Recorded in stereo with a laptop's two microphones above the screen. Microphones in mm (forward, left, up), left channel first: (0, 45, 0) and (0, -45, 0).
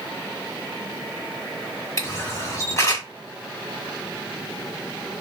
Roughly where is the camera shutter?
Left.